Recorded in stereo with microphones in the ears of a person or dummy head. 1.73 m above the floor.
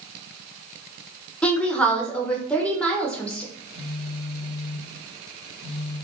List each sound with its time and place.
1.4 s a woman speaking: 5° left (ahead or behind), 0.6 m
3.5 s a phone buzzing: 50° left (ahead or behind), 1.3 m